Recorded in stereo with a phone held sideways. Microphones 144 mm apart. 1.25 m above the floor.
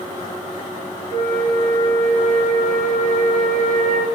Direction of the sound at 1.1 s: 80° right.